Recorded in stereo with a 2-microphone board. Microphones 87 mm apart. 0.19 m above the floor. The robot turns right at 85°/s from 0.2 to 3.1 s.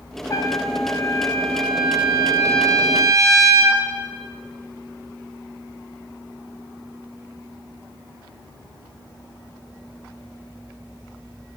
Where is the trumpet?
65° left, 1.3 m; by 3.8 s 60° right, 1.3 m.